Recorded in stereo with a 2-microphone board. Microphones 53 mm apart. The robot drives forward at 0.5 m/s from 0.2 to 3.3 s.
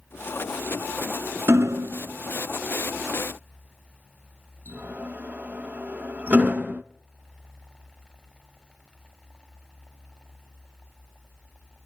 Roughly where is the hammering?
Right.